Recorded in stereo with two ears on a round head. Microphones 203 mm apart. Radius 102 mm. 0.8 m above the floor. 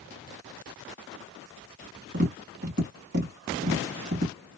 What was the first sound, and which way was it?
Tapping, 45° right (ahead or behind).